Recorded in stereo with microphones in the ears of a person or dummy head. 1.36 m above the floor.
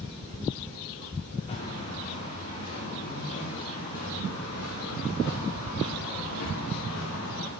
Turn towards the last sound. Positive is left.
turn(degrees=65)  # may be behind; listen again after turning